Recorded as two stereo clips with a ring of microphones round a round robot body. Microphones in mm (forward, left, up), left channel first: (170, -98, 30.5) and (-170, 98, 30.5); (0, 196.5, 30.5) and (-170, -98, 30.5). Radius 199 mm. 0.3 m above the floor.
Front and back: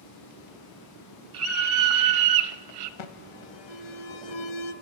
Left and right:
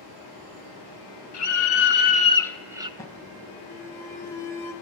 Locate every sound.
1.3 s a scream: 95° left, 1.8 m; by 2.9 s 165° left, 1.4 m
3.0 s an alarm: 20° right, 1.3 m